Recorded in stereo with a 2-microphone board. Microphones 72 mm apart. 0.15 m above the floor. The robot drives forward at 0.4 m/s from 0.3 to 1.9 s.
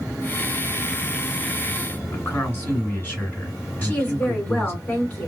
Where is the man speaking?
20° left (ahead or behind), 1.9 m.